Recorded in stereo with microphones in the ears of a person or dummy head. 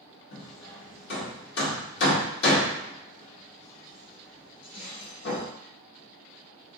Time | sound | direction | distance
0.3 | hammering | 65° left (ahead or behind) | 1.7 m